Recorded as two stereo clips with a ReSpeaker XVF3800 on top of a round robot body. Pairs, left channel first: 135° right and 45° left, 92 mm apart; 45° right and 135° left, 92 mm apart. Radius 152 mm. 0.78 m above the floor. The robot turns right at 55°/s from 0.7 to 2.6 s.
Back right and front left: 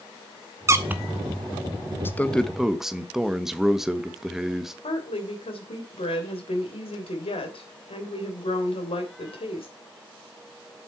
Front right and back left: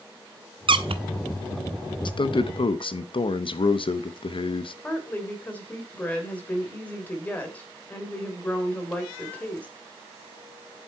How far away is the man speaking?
About 1.1 m.